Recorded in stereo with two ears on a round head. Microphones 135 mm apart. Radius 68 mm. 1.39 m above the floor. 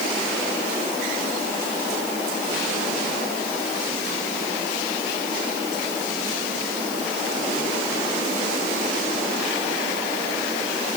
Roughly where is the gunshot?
I don't hear a gunshot.